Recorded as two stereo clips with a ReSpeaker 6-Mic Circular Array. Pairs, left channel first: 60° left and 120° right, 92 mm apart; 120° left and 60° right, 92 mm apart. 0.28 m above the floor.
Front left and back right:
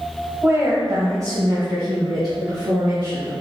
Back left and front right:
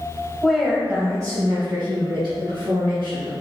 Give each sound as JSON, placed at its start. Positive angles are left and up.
{"t": 0.4, "sound": "a woman speaking", "azimuth_deg": -160, "distance_m": 1.1}